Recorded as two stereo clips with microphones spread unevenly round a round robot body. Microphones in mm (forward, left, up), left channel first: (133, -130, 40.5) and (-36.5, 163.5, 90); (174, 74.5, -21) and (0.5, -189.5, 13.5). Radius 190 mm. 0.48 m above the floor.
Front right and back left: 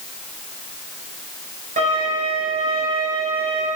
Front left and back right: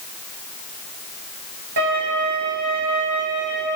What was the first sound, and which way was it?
A violin, 170° right.